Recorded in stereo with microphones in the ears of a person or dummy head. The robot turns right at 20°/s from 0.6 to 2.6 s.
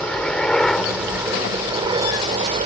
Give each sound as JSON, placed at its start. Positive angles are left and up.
{"t": 0.0, "sound": "a helicopter", "azimuth_deg": 175}